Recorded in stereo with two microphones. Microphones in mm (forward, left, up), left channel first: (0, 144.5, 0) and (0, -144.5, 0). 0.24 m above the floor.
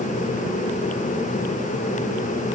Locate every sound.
Only background noise.